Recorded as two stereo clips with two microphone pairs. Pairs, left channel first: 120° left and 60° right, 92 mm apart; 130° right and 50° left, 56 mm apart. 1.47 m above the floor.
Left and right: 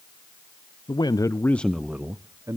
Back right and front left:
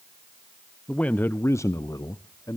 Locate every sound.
0.9 s a man speaking: 155° left, 0.6 m; by 2.6 s 110° right, 0.8 m